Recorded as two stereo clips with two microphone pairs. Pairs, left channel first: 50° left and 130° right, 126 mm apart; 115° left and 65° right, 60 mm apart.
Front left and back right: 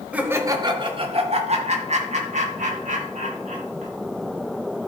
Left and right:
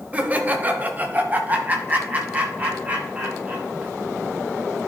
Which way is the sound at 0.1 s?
65° right.